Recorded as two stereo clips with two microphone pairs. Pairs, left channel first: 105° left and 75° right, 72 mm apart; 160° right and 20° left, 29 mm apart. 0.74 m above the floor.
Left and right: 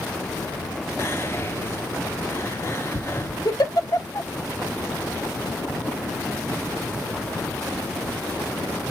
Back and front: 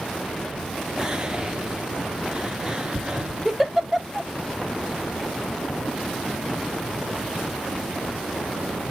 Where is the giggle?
100° left, 1.1 m.